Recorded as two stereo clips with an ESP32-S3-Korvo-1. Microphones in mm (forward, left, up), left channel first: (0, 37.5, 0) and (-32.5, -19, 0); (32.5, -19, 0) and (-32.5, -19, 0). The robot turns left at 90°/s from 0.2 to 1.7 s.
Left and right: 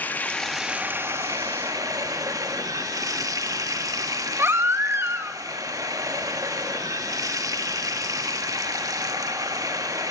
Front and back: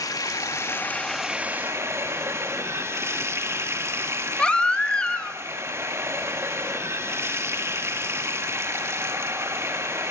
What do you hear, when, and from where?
0.0 s running water: straight ahead, 1.8 m; by 10.1 s 135° right, 1.8 m
4.4 s a baby crying: 75° right, 1.6 m